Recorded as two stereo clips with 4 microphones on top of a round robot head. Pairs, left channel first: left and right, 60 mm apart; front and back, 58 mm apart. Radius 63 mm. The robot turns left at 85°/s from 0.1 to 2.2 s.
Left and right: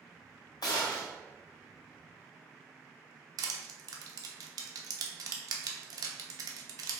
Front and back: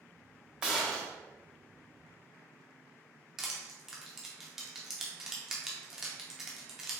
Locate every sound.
0.6 s a gunshot: 105° left, 1.4 m; by 1.1 s 65° left, 1.4 m
3.4 s crushing: 95° right, 0.8 m